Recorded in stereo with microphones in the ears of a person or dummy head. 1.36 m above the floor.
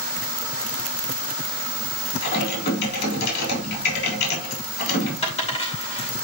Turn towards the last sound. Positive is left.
turn(degrees=35)  # may be behind; listen again after turning